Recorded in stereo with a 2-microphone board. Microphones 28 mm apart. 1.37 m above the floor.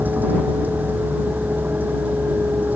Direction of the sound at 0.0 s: 70° right (ahead or behind).